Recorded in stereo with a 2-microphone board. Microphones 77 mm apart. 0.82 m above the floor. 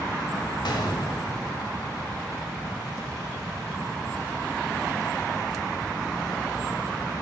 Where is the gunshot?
75° left (ahead or behind), 2 m.